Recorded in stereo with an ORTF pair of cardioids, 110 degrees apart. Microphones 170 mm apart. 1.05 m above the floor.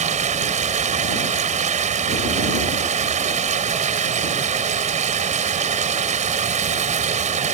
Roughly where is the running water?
Ahead right.